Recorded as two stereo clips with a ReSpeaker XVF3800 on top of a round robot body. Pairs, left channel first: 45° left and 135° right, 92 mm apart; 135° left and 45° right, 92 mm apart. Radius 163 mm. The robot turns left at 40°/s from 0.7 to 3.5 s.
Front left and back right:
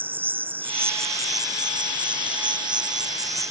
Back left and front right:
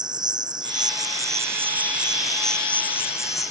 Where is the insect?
70° right; by 3.5 s 175° left.